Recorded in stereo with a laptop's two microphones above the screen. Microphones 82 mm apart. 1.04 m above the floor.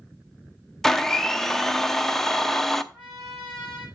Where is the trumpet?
20° left (ahead or behind), 5 m.